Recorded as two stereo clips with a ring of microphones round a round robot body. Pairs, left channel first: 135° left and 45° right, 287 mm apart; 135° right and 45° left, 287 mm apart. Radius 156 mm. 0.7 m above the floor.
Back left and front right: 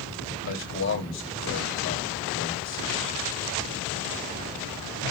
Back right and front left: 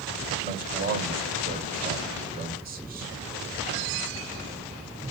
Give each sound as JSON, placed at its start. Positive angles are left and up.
{"t": 0.4, "sound": "a man speaking", "azimuth_deg": 100, "distance_m": 1.9}